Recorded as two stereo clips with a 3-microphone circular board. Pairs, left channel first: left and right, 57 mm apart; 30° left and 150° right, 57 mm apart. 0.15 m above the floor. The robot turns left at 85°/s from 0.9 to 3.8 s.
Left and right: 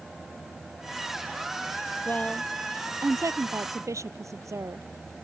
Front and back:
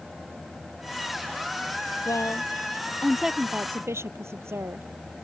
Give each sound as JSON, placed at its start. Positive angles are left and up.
{"t": 2.0, "sound": "a woman speaking", "azimuth_deg": 35}